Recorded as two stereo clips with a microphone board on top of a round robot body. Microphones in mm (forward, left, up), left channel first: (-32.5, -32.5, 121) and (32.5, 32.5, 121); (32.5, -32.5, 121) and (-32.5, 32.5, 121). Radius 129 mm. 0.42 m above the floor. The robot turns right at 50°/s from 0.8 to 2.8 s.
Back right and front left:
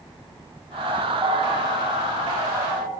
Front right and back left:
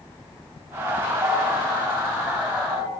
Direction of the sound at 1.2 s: 90° left.